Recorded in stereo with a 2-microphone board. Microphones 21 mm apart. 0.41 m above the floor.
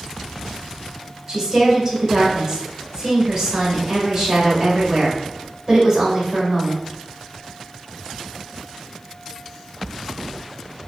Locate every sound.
1.3 s a woman speaking: 20° right (ahead or behind), 2.0 m